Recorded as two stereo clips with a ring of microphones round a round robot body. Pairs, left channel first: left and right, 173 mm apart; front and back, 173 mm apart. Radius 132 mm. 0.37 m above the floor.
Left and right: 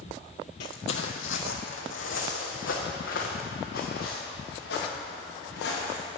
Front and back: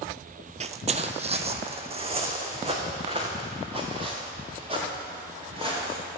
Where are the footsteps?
135° left, 0.6 m; by 6.0 s 120° left, 5 m.